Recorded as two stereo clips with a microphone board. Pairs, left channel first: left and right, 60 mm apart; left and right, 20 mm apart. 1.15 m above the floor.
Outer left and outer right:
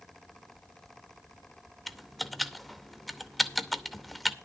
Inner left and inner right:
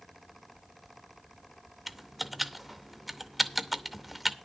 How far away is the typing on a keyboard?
About 0.7 m.